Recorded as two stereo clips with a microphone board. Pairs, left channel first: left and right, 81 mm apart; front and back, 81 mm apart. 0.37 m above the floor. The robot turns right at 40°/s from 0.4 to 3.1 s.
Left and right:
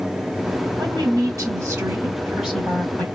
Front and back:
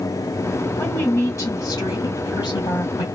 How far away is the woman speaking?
About 2 m.